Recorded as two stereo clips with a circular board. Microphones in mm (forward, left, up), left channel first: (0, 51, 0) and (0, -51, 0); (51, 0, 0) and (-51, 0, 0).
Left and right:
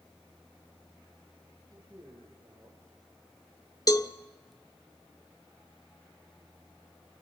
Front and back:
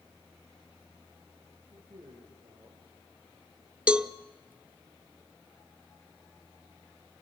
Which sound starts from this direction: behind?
A man speaking, at 1.7 s.